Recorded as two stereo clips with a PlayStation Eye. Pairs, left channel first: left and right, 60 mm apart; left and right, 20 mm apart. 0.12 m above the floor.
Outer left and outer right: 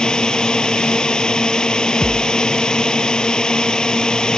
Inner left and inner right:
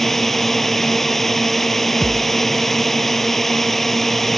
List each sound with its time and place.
0.0 s a drone: 15° left (ahead or behind)
2.0 s a thud: 15° left (ahead or behind)